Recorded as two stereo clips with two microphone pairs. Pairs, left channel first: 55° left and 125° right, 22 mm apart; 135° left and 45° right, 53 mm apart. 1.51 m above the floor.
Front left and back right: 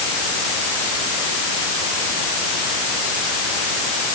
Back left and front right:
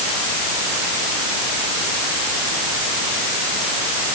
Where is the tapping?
I don't hear tapping.